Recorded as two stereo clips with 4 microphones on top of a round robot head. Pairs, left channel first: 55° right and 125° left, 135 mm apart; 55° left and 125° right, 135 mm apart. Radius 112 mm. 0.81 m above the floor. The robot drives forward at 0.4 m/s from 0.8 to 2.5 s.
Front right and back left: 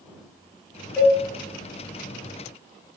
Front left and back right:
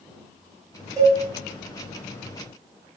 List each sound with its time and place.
1.0 s a cowbell: 130° right, 0.9 m; by 1.2 s 140° right, 0.9 m